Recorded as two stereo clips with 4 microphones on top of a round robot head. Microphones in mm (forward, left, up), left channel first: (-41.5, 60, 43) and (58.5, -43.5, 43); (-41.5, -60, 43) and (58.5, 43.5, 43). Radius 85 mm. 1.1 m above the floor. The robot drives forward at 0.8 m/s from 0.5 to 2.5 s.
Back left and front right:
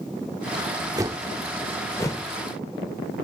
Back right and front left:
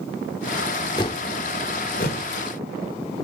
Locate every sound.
1.0 s a whoosh: 95° right, 0.7 m; by 2.2 s 160° right, 1.3 m